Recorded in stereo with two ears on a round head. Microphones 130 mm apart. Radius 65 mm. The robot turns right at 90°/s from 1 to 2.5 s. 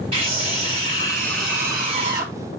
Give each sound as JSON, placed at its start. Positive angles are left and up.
{"t": 0.1, "sound": "a scream", "azimuth_deg": -130, "distance_m": 5.5}